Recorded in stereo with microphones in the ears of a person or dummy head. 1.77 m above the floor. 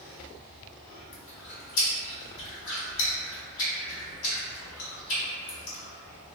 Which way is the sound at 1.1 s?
70° left (ahead or behind).